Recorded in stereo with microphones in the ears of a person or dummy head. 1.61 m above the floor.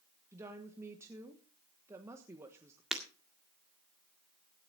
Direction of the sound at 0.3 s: 10° right (ahead or behind).